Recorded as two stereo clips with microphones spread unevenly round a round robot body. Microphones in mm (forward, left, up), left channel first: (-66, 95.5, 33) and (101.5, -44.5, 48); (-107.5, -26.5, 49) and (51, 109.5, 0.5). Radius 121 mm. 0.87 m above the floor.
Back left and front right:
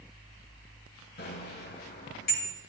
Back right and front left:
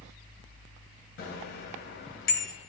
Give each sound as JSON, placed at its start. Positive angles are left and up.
{"t": 1.2, "sound": "a bicycle bell", "azimuth_deg": -170, "distance_m": 3.5}